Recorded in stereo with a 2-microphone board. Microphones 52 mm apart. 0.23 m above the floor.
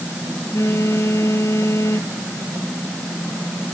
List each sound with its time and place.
0.5 s a phone buzzing: 60° left (ahead or behind)